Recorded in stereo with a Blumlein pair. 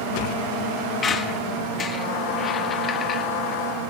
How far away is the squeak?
About 1.3 m.